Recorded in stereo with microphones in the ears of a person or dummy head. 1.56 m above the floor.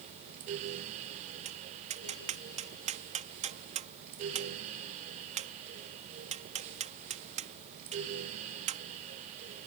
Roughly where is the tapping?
Right.